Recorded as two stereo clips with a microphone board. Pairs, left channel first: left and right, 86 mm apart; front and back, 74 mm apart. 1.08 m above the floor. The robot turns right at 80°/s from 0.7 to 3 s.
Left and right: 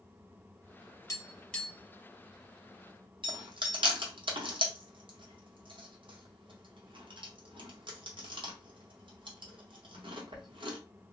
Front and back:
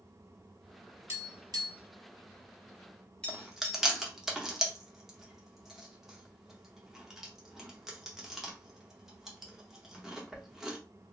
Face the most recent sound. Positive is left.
turn(degrees=-95)